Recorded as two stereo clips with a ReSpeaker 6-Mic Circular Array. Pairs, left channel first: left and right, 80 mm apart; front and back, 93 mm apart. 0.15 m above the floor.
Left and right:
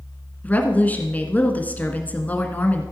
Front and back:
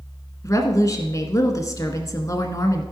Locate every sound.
0.4 s a woman speaking: 30° left, 1.5 m